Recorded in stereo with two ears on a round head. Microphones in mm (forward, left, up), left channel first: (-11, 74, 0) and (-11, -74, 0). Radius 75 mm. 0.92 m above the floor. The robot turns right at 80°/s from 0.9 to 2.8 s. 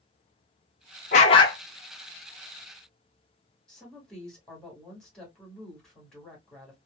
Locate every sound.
1.1 s a dog barking: 120° left, 0.8 m; by 1.6 s 160° left, 0.8 m
3.7 s a woman speaking: 5° left (ahead or behind), 1.9 m